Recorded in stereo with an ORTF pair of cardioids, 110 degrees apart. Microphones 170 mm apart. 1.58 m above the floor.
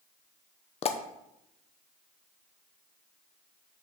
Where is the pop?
40° left, 0.9 m.